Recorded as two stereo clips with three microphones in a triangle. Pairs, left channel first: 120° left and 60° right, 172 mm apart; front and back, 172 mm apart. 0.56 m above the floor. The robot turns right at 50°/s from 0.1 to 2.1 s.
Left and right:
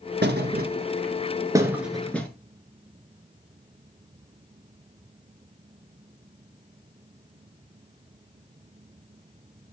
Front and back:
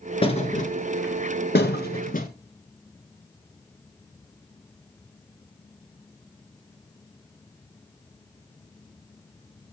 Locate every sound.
0.2 s a thud: 55° right, 1.6 m; by 2.3 s 40° left, 1.6 m